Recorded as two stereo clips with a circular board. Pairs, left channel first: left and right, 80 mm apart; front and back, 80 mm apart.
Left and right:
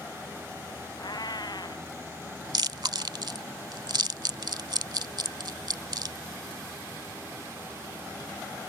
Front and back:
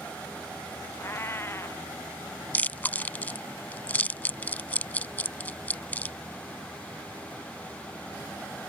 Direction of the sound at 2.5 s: 70° right.